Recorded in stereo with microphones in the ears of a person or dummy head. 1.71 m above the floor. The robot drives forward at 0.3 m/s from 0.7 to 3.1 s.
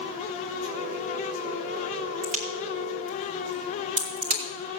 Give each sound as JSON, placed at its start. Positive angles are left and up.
{"t": 2.2, "sound": "a crack", "side_deg": -40, "distance_m": 2.5}